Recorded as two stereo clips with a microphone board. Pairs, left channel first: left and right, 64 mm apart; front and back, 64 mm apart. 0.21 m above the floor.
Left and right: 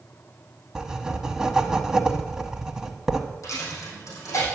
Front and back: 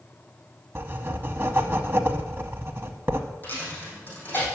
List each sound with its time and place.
0.8 s writing: 165° right, 0.9 m
3.4 s a dropped coin: 60° left, 4.5 m